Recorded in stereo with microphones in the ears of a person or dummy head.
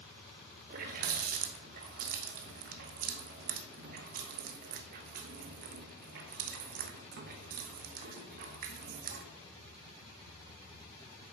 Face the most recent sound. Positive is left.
turn(degrees=-55)  # may be behind; listen again after turning